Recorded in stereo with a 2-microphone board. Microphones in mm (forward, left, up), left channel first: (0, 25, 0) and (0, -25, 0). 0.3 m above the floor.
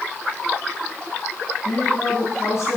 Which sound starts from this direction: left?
A woman speaking, at 1.6 s.